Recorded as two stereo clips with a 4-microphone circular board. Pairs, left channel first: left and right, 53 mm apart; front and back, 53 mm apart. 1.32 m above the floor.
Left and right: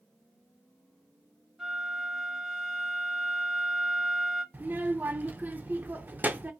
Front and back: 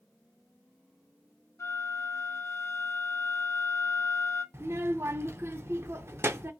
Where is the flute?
10° right, 1.9 m.